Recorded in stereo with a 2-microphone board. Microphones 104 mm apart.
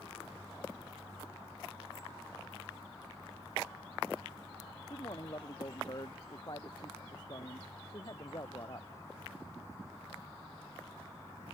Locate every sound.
4.9 s a man speaking: 45° left (ahead or behind)